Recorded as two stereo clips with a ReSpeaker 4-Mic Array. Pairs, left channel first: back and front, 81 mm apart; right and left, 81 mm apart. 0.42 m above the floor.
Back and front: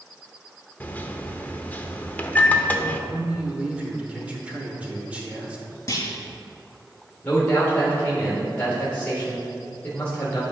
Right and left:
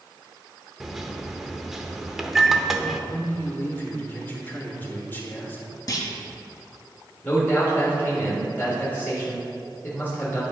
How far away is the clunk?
About 1.3 m.